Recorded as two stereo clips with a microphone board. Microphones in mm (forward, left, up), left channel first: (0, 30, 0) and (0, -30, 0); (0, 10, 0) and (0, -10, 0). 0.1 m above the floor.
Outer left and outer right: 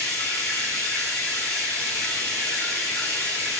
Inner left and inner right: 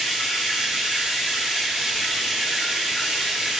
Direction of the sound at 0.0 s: 65° right (ahead or behind).